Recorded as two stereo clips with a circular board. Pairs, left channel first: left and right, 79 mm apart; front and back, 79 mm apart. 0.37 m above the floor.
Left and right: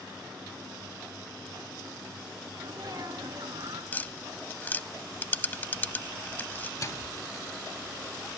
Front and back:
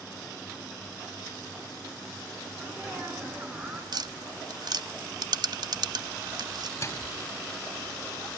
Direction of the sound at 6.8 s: 50° left.